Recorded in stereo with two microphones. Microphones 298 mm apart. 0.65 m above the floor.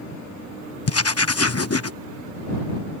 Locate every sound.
0.9 s writing: 55° left (ahead or behind)